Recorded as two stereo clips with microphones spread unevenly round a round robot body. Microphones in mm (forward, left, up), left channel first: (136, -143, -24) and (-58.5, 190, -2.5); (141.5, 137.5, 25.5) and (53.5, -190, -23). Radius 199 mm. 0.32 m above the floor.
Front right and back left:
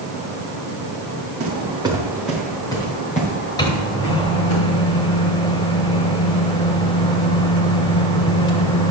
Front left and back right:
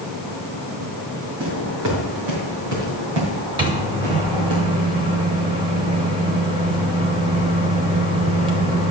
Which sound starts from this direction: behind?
Footsteps, at 1.4 s.